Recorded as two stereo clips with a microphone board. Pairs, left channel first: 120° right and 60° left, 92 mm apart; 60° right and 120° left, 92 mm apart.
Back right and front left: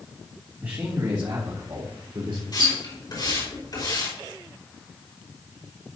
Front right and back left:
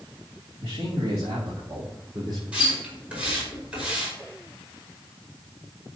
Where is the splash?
160° right, 5 m.